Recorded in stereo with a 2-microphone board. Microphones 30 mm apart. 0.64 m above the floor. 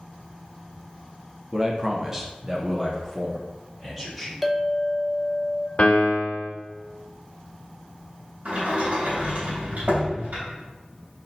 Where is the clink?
Centre (ahead or behind), 0.5 m.